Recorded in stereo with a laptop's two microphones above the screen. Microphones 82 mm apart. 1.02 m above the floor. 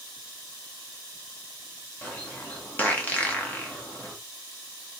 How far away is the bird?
About 0.7 m.